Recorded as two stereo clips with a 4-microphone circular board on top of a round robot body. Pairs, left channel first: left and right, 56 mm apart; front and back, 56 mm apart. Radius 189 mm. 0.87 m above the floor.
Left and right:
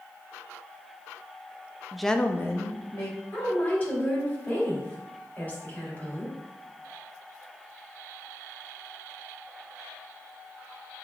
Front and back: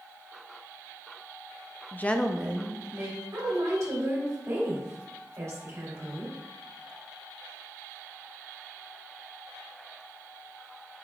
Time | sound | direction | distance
1.9 | a woman speaking | 10° right | 0.6 m
3.3 | a woman speaking | 145° left | 1.7 m